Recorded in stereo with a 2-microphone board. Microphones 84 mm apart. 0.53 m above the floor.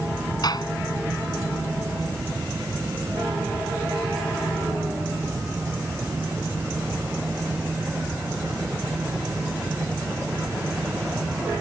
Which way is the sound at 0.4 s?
55° left (ahead or behind).